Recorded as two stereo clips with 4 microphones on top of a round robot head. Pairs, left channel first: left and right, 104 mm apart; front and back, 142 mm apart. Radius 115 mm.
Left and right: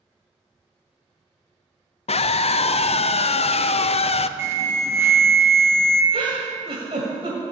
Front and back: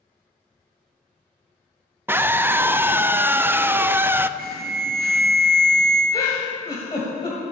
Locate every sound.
2.1 s a scream: 105° left, 0.6 m
4.4 s an alarm: 155° right, 1.7 m
6.1 s a giggle: 60° right, 1.4 m